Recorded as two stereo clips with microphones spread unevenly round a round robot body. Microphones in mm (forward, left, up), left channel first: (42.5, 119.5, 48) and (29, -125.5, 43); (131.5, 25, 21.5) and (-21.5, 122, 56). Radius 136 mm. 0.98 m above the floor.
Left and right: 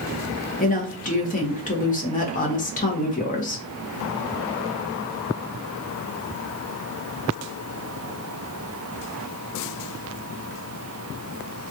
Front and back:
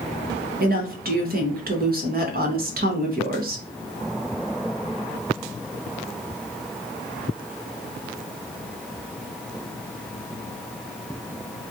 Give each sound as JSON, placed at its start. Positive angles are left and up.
{"t": 0.6, "sound": "a woman speaking", "azimuth_deg": 130, "distance_m": 1.0}